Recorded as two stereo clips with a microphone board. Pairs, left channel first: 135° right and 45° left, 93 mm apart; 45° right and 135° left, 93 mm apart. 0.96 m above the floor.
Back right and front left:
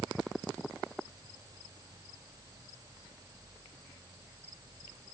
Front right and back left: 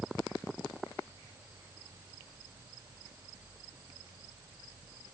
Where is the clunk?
I don't hear a clunk.